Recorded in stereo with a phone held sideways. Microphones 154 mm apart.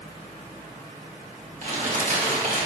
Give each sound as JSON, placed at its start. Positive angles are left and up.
{"t": 1.6, "sound": "crumpling", "side_deg": -55, "distance_m": 1.9}